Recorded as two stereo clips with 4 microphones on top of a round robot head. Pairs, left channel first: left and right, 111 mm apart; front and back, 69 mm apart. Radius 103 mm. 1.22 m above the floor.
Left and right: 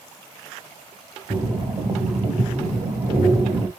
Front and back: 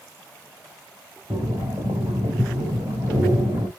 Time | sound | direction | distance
1.3 | breathing | 145° right | 1.1 m